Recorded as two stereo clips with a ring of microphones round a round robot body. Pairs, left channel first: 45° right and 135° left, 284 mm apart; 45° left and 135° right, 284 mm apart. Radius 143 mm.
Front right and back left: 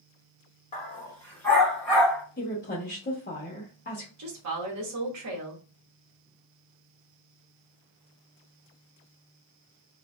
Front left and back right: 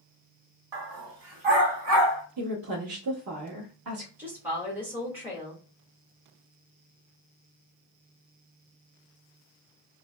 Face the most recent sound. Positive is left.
turn(degrees=145)